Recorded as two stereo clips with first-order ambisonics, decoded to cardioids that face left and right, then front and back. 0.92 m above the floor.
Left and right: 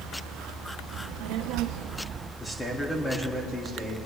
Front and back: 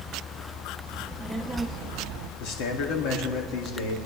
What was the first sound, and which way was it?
A child speaking, 80° right.